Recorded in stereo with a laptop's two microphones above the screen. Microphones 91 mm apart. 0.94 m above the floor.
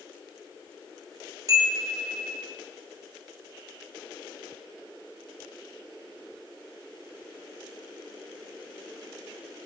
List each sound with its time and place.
1.5 s a chime: 40° right (ahead or behind), 0.6 m